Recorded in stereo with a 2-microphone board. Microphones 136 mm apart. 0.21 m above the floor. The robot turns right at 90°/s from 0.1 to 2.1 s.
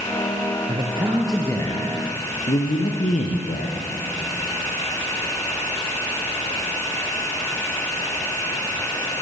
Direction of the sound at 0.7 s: 60° right.